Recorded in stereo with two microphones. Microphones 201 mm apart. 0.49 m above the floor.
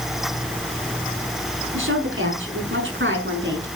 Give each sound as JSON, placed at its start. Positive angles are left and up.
{"t": 1.7, "sound": "a woman speaking", "side_deg": -80, "distance_m": 6.0}